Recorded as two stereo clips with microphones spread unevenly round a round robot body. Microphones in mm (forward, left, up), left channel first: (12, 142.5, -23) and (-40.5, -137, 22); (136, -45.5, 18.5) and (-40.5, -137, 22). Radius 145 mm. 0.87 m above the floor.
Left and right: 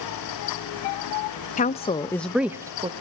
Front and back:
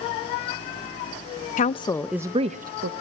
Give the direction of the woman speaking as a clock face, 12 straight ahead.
11 o'clock.